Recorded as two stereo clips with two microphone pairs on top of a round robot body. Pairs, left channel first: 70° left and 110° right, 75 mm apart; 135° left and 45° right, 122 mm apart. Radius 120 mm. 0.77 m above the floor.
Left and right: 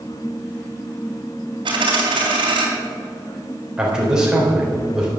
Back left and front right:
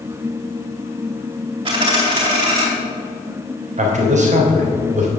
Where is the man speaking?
25° right, 3.5 m.